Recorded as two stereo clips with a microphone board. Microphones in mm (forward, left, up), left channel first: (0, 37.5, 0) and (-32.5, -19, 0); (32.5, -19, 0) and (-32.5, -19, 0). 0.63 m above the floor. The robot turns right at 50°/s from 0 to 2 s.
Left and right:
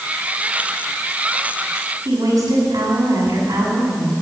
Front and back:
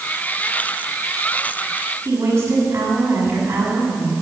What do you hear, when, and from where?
2.0 s a woman speaking: 125° right, 6 m